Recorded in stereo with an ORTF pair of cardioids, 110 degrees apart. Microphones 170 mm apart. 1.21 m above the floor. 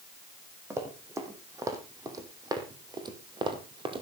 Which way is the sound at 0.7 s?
15° right.